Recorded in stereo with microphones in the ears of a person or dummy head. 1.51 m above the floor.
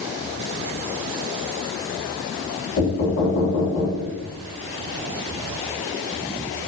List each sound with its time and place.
2.8 s knocking: 60° left (ahead or behind), 0.9 m